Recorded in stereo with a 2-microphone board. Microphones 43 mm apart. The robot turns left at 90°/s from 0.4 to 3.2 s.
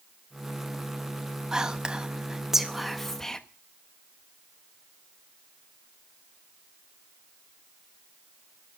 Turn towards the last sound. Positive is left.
turn(degrees=10)  # may be behind; listen again after turning